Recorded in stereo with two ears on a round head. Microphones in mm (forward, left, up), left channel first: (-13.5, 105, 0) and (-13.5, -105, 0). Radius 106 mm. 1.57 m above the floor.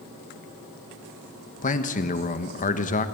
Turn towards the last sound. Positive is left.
turn(degrees=35)  # may be behind; listen again after turning